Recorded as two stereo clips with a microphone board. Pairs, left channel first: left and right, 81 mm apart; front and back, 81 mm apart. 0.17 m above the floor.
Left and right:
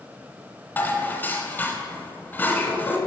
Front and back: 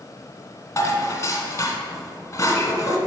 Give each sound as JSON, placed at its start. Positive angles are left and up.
{"t": 0.8, "sound": "dishes clattering", "azimuth_deg": 30, "distance_m": 1.1}